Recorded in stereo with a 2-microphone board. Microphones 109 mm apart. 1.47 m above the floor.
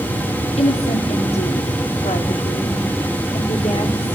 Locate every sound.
0.6 s a woman speaking: 85° left, 4.5 m; by 4.2 s 65° left (ahead or behind), 5 m